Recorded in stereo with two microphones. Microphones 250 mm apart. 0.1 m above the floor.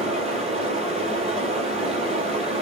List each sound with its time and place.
0.0 s running water: 25° right (ahead or behind), 1.0 m